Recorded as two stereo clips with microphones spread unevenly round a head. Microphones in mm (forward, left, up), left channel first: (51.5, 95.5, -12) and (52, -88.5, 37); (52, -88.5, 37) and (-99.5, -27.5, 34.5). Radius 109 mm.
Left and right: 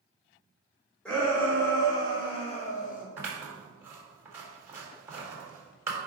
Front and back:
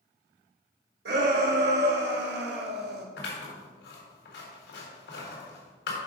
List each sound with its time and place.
1.1 s a shout: 175° left, 2.5 m; by 3.1 s 130° left, 1.3 m
3.2 s scissors: 15° right, 4 m